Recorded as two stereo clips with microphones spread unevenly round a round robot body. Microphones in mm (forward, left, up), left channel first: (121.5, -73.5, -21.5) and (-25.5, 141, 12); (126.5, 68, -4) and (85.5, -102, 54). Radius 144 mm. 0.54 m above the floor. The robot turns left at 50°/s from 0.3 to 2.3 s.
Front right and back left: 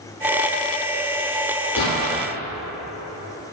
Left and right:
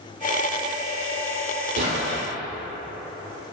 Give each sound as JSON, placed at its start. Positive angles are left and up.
{"t": 1.8, "sound": "an explosion", "azimuth_deg": -110, "distance_m": 2.5}